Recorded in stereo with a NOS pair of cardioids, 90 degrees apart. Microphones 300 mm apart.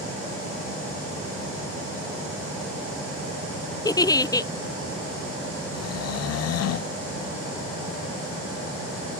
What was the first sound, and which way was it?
A giggle, 10° left.